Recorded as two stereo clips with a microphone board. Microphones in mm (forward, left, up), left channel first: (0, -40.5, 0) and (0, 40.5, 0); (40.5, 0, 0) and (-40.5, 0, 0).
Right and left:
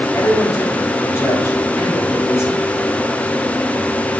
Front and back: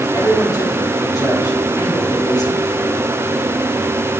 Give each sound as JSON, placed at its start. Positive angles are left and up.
{"t": 0.1, "sound": "a man speaking", "azimuth_deg": -35, "distance_m": 3.5}